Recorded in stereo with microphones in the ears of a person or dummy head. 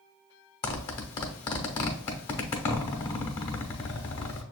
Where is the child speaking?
No child speaking in this recording.